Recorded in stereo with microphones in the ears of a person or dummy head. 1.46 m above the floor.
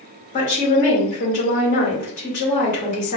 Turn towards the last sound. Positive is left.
turn(degrees=45)  # may be behind; listen again after turning